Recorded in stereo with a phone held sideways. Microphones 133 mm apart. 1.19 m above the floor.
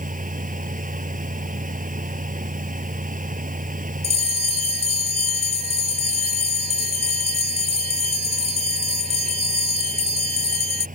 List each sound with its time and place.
0.0 s a fan: 85° right
4.0 s a bell: 50° right (ahead or behind)